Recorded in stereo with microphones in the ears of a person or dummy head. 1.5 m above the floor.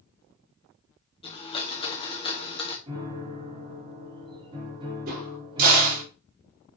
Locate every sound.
1.2 s a blender: 30° left (ahead or behind), 1.5 m
2.9 s a piano: 25° right (ahead or behind), 4 m
5.1 s a crack: 50° right (ahead or behind), 4 m